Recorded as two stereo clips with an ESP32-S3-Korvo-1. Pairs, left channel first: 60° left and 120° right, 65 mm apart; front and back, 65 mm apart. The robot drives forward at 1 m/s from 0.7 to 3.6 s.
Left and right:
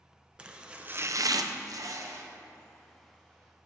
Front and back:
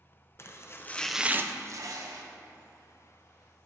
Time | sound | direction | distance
0.4 | chopping | 45° right | 0.6 m